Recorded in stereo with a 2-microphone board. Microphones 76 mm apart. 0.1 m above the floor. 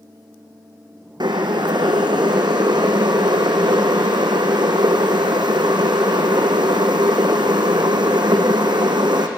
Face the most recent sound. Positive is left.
turn(degrees=-70)  # may be behind; listen again after turning